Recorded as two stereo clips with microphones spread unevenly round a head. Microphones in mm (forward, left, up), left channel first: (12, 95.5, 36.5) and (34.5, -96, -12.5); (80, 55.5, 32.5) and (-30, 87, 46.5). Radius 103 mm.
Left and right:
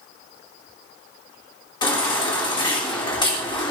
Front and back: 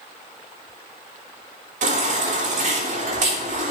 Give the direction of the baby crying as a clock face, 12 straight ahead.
7 o'clock.